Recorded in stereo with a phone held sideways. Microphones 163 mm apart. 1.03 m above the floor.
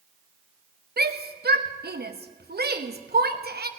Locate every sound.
1.0 s a shout: 75° right (ahead or behind), 1.0 m